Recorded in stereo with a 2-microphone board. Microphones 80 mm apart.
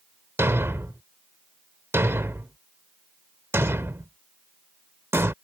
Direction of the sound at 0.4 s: 30° right (ahead or behind).